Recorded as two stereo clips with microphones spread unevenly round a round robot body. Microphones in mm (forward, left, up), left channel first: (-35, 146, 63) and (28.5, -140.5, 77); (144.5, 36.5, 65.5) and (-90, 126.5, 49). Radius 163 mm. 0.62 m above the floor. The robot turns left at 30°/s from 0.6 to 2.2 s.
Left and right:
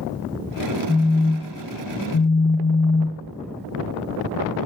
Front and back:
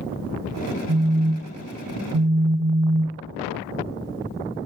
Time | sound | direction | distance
0.9 | a phone buzzing | 175° left | 1.4 m